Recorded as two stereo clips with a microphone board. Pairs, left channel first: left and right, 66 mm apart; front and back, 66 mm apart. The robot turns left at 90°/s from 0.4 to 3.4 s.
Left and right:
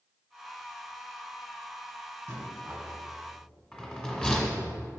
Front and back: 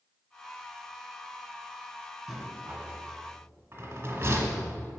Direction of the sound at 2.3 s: 100° right.